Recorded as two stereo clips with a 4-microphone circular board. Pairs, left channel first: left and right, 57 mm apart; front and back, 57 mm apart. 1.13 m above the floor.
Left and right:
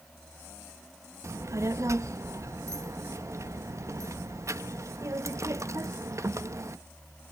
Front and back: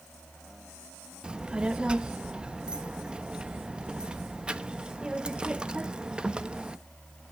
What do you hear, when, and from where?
1.2 s a child speaking: 110° right, 0.6 m